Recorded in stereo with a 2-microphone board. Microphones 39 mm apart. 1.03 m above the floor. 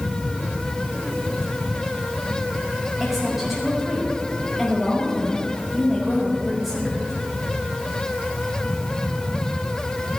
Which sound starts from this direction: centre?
A woman speaking, at 3.0 s.